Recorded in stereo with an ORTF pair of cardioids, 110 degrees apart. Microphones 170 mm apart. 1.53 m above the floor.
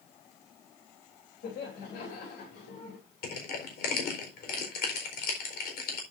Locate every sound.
1.4 s laughter: 70° left, 3 m
3.2 s crushing: 65° left, 4 m